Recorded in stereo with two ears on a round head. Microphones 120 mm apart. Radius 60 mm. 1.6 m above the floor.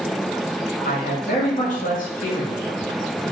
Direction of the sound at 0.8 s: 65° left (ahead or behind).